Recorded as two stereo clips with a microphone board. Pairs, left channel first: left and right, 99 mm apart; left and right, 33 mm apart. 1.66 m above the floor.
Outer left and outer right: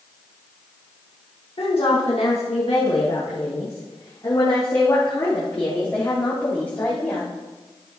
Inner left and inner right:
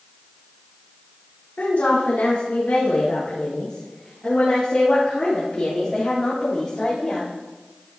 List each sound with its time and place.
1.6 s a woman speaking: 70° left (ahead or behind), 1.9 m; by 7.3 s 20° left (ahead or behind), 4.5 m